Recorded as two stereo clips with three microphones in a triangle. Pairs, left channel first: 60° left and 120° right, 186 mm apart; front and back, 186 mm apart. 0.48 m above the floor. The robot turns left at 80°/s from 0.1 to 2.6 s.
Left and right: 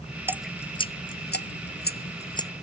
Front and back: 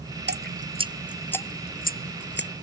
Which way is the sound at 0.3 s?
165° left.